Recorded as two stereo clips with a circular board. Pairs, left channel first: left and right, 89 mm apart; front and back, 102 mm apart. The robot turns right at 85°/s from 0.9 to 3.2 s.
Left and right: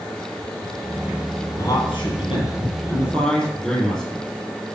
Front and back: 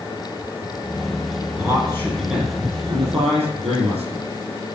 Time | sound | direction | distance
1.6 | a man speaking | 35° left | 4.5 m